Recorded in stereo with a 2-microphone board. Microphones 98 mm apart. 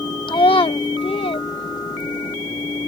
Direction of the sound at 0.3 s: 50° left (ahead or behind).